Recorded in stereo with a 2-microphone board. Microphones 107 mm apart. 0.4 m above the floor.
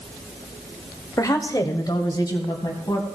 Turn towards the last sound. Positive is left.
turn(degrees=35)  # may be behind; listen again after turning